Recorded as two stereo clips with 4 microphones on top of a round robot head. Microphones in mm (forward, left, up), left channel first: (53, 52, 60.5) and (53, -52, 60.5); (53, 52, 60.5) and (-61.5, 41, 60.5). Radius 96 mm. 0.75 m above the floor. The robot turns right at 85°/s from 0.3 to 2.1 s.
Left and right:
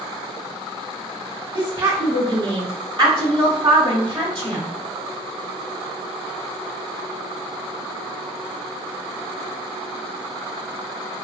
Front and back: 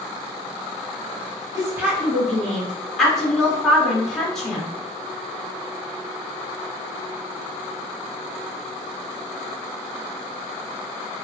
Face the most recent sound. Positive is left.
turn(degrees=-80)